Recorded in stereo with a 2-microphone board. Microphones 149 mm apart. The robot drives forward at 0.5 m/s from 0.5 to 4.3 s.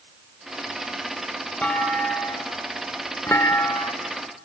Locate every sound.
1.6 s a clunk: 10° left (ahead or behind), 1.6 m; by 3.9 s 25° left (ahead or behind), 0.6 m